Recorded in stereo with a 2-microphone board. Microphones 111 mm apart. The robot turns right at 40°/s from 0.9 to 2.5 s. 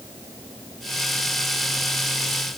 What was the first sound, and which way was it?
Only background noise.